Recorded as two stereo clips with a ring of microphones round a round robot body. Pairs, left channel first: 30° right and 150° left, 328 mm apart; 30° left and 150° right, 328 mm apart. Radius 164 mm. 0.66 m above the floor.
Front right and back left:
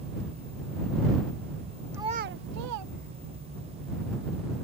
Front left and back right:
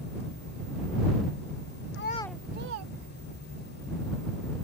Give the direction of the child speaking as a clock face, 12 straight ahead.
10 o'clock.